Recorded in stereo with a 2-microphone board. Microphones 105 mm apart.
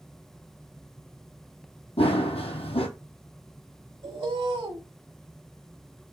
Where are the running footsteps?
70° left (ahead or behind), 0.8 m.